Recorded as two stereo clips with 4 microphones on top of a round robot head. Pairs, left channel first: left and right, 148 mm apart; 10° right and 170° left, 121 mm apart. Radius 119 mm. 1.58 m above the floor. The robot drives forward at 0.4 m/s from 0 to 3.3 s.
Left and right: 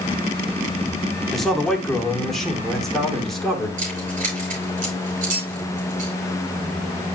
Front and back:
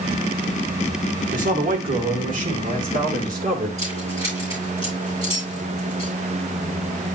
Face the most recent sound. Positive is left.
turn(degrees=-125)